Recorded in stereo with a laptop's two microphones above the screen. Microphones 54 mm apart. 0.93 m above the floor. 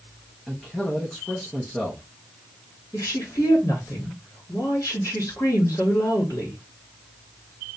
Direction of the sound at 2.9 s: 70° left (ahead or behind).